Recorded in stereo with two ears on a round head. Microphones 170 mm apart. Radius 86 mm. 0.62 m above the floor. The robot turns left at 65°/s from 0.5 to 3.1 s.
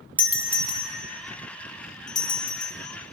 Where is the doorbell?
10° right (ahead or behind), 1.1 m; by 2.7 s 20° left (ahead or behind), 1.1 m.